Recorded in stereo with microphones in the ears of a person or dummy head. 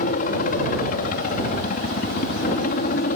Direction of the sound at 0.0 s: 45° left (ahead or behind).